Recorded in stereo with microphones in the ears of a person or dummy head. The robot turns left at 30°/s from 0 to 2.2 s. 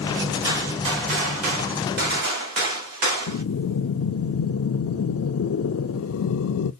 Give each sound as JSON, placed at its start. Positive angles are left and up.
{"t": 0.4, "sound": "a gunshot", "azimuth_deg": -25, "distance_m": 1.7}
{"t": 3.3, "sound": "breathing", "side_deg": 85, "distance_m": 0.6}